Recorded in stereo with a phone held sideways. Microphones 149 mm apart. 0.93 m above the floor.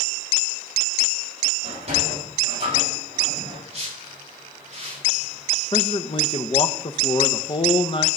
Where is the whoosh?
45° right (ahead or behind), 4 m.